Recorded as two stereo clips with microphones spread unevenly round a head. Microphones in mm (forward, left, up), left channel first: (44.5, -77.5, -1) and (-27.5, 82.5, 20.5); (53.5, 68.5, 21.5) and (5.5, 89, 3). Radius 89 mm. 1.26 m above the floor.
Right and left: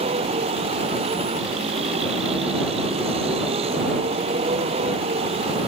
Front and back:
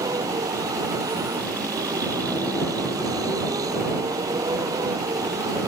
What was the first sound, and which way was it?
A vehicle, 175° left.